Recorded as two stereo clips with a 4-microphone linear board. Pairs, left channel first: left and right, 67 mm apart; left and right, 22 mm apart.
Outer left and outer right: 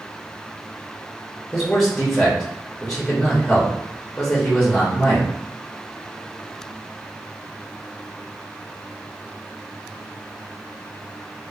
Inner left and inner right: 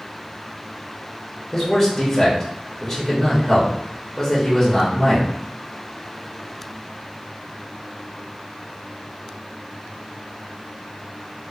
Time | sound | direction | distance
1.5 | a man speaking | 5° left (ahead or behind) | 0.7 m